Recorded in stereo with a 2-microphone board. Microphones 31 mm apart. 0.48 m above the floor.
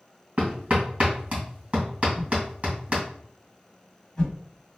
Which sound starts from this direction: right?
Hammering, at 0.4 s.